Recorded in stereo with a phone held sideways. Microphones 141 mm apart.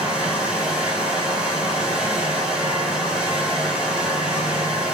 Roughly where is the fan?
Centre.